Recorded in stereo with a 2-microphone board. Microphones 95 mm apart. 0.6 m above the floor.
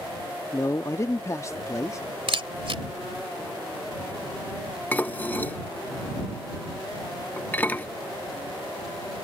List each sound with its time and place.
0.5 s a man speaking: 30° left (ahead or behind)
2.3 s a camera shutter: 70° right (ahead or behind)
4.9 s dishes clattering: 20° left (ahead or behind)